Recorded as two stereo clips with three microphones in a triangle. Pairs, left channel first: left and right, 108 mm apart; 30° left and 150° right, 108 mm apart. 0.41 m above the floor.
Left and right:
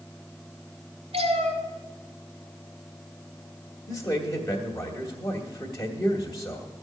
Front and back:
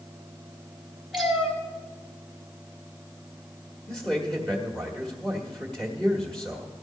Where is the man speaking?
110° left, 1.5 m.